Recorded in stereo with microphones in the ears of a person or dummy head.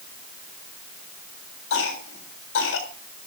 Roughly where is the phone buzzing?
I don't hear a phone buzzing.